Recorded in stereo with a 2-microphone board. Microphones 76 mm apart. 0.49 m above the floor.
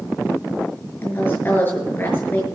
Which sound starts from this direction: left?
A woman speaking, at 1.0 s.